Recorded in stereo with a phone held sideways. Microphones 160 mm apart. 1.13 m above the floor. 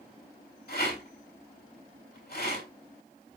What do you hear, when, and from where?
0.7 s a rattle: 80° left, 6 m